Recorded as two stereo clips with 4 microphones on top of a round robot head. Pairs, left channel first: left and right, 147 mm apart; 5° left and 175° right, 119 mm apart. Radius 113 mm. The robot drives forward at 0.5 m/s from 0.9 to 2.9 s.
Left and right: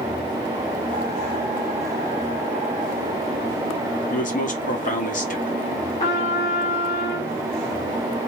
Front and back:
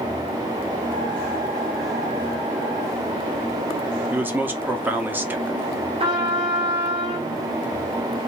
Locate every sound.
4.1 s a man speaking: 110° left, 1.3 m
6.0 s a trumpet: 140° left, 1.5 m